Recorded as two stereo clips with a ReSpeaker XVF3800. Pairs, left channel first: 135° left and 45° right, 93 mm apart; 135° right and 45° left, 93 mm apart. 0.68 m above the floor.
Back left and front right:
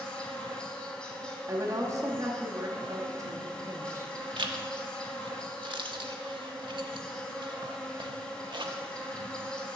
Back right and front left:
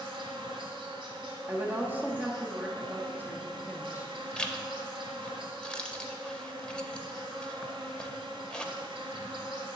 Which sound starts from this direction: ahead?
A woman speaking, at 1.5 s.